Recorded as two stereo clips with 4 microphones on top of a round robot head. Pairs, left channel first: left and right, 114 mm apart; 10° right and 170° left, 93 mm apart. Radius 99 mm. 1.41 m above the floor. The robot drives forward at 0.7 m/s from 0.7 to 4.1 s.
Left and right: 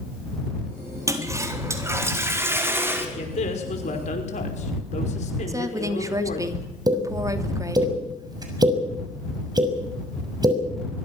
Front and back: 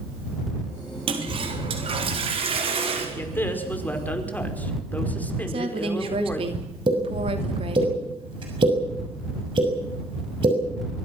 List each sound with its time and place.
1.1 s a toilet flushing: 155° right, 3.5 m; by 3.0 s 160° right, 5 m
3.1 s a man speaking: 60° left, 5.5 m; by 6.5 s 65° left, 5 m
5.5 s a woman speaking: 150° right, 3 m
6.9 s a pop: 145° right, 6.5 m